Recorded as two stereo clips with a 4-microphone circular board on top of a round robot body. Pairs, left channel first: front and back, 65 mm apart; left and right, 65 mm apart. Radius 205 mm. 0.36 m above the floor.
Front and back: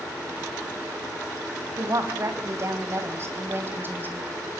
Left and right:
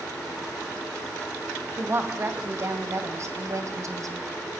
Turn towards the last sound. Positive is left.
turn(degrees=-120)